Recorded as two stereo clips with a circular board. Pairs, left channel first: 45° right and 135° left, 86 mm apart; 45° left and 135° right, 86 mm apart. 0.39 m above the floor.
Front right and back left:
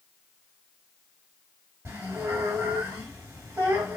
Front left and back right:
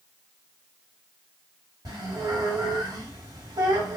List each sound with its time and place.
1.9 s a squeak: 165° right, 1.7 m